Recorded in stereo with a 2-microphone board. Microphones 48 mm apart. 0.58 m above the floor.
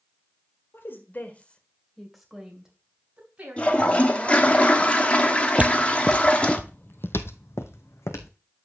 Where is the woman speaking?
55° left (ahead or behind), 1.9 m; by 4.6 s 35° right (ahead or behind), 4.5 m.